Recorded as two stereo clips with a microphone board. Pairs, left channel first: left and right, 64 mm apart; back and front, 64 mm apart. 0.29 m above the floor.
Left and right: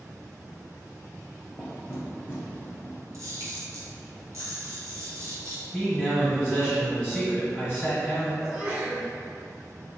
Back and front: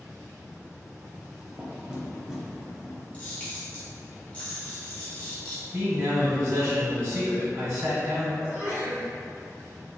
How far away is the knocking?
About 0.7 m.